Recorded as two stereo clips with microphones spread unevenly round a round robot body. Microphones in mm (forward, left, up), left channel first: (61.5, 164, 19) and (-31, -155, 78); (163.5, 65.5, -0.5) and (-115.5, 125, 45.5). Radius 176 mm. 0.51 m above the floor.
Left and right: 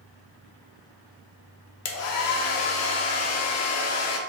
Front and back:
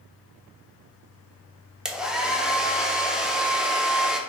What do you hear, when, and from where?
1.9 s a hair dryer: 75° left, 0.6 m